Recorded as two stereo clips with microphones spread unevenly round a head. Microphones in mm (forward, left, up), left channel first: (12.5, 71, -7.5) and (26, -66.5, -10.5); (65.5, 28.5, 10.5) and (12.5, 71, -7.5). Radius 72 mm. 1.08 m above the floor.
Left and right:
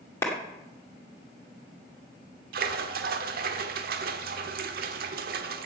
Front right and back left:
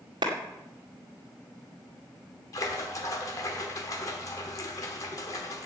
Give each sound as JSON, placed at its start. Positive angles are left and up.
{"t": 0.2, "sound": "a clap", "azimuth_deg": 170, "distance_m": 2.0}
{"t": 2.5, "sound": "a splash", "azimuth_deg": -85, "distance_m": 1.2}